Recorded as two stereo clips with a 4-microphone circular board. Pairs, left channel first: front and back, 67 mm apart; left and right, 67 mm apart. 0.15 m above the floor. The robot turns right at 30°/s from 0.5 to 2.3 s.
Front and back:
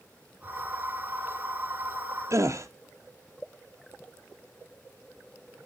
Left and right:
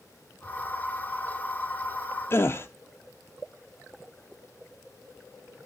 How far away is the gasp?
About 0.8 m.